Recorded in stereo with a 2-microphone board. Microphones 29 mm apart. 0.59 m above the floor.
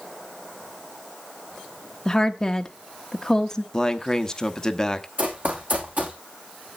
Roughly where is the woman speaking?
Left.